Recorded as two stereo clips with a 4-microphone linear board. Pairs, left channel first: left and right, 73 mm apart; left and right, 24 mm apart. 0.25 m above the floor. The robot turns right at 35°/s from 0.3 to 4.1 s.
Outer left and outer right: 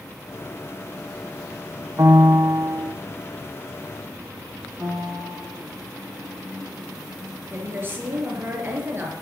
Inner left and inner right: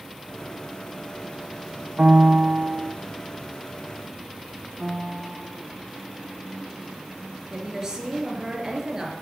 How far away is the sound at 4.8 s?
About 8 m.